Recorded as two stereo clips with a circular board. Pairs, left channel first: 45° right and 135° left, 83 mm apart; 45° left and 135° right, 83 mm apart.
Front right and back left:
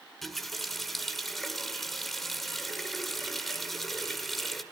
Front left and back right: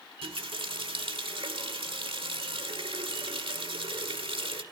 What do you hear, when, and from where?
0.2 s a running tap: 135° right, 1.6 m